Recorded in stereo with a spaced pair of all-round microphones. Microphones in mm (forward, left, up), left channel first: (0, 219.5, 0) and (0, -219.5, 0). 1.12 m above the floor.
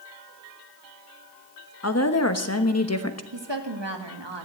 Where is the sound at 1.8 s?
35° left (ahead or behind), 1.1 m.